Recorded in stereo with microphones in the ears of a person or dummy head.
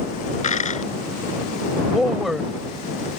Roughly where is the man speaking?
Centre.